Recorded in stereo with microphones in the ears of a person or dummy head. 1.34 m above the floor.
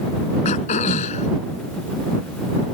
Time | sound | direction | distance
0.5 | throat clearing | 40° left (ahead or behind) | ?